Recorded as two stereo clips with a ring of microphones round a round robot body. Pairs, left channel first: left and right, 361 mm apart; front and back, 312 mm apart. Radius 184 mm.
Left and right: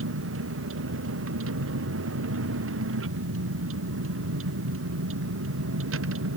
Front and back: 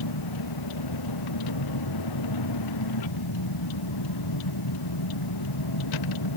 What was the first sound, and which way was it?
A vehicle, 35° right.